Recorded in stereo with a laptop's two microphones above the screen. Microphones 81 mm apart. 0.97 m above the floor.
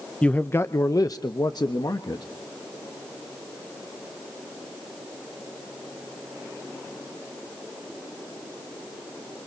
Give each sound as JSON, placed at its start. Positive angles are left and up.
{"t": 0.2, "sound": "a man speaking", "side_deg": 10, "distance_m": 0.6}